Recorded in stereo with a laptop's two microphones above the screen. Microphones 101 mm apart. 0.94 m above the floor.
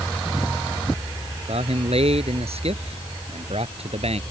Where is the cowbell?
I don't hear a cowbell.